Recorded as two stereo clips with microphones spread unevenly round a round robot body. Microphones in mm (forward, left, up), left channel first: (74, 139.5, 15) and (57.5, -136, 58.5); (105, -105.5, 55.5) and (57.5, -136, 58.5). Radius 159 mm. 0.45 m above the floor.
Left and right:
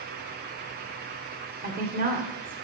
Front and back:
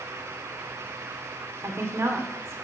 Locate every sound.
1.6 s a woman speaking: 150° right, 1.8 m